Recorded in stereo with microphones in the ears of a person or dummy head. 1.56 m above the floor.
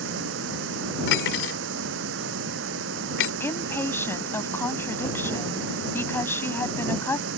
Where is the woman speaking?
15° left (ahead or behind).